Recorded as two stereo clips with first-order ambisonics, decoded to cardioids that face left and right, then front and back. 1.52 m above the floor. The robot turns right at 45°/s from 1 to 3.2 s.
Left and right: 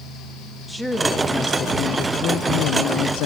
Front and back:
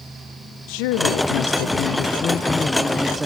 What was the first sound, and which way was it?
A woman speaking, straight ahead.